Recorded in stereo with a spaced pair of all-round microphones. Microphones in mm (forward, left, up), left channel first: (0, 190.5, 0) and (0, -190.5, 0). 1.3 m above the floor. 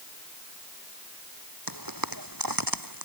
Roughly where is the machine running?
No machine running in this recording.